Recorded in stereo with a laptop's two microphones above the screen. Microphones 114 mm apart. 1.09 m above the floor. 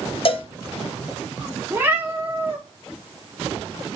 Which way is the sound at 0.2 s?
50° left (ahead or behind).